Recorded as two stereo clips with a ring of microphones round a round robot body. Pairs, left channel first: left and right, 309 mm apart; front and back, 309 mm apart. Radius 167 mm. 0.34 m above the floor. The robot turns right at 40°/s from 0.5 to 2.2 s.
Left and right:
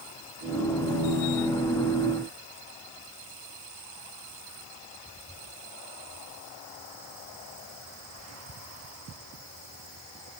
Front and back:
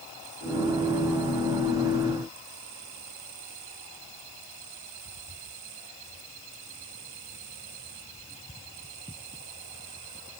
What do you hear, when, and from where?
Only background noise.